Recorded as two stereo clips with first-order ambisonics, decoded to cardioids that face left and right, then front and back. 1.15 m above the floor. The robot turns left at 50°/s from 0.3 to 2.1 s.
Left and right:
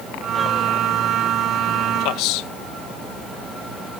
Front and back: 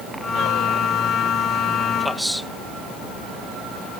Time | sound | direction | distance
2.0 | a man speaking | 95° left | ?